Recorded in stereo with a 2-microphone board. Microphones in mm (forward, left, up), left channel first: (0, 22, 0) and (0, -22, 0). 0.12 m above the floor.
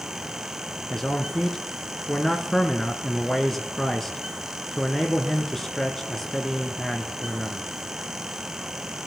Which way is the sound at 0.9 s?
10° left (ahead or behind).